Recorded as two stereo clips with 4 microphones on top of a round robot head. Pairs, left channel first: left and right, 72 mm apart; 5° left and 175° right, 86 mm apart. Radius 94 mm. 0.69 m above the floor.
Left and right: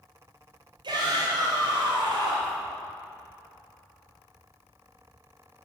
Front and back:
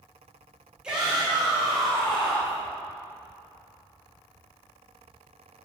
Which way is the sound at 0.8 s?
95° right.